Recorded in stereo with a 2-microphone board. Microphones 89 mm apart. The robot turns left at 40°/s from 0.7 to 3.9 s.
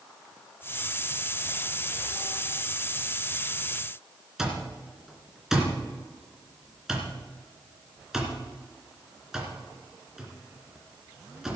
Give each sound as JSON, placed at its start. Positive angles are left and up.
{"t": 4.4, "sound": "an alarm clock", "side_deg": -5, "distance_m": 2.5}